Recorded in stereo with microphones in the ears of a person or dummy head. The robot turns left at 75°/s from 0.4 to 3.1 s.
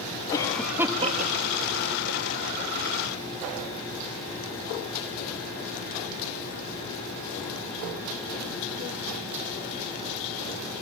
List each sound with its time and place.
0.3 s a cough: 20° left (ahead or behind), 1.7 m; by 2.7 s 25° right (ahead or behind), 1.7 m